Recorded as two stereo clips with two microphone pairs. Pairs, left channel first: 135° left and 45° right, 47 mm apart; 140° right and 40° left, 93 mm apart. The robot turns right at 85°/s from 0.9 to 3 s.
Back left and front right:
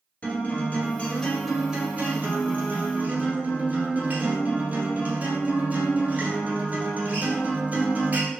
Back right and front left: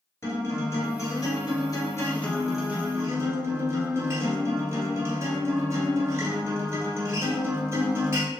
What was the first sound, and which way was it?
A guitar, 175° left.